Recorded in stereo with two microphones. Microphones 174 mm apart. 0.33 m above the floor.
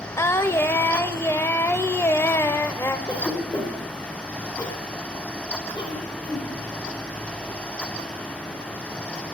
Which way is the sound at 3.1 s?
25° left (ahead or behind).